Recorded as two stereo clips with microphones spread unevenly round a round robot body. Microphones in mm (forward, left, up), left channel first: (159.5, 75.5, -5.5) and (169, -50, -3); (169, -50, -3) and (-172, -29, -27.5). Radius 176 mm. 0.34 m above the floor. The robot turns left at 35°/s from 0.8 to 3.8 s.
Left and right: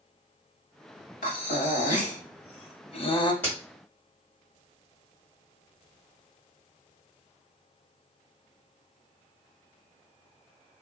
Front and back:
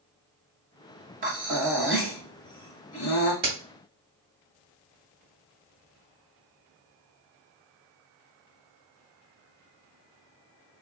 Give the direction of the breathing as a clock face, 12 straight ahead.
8 o'clock.